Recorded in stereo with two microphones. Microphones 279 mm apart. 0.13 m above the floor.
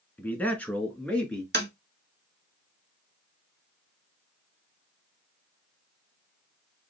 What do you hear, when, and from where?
0.2 s a man speaking: 5° left (ahead or behind), 1.1 m
1.5 s tapping: 35° right (ahead or behind), 1.3 m